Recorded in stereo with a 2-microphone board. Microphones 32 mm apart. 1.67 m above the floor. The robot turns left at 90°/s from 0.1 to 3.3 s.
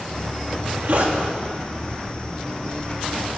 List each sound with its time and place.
0.5 s a zipper: 60° right, 1.9 m; by 1.2 s 125° right, 1.9 m